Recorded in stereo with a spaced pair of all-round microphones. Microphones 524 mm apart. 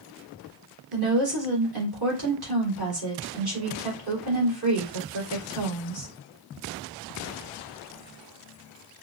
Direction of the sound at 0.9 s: 45° right (ahead or behind).